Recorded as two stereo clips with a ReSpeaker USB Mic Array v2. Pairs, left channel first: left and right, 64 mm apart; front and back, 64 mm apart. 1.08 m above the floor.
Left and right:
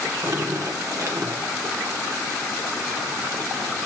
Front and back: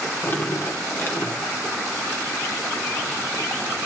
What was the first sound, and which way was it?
Dripping, 50° right.